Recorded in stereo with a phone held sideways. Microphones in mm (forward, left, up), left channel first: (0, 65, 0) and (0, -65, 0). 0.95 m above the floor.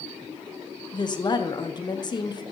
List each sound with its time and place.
0.9 s a woman speaking: 35° left (ahead or behind), 0.7 m